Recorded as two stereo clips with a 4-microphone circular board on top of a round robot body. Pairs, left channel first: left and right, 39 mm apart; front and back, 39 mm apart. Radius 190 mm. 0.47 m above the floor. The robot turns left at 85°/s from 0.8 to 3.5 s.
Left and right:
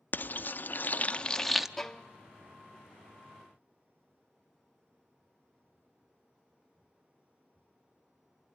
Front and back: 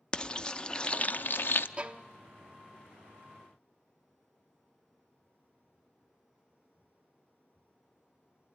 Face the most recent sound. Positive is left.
turn(degrees=20)